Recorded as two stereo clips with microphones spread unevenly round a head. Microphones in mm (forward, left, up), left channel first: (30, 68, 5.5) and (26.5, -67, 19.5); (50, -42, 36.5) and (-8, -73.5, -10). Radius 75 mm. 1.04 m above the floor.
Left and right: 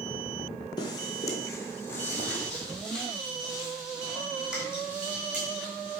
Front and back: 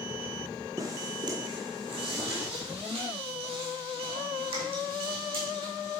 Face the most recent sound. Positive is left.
turn(degrees=-170)